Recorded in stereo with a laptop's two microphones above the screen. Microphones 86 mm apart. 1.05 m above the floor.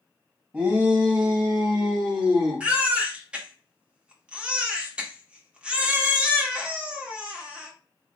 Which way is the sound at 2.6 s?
10° right (ahead or behind).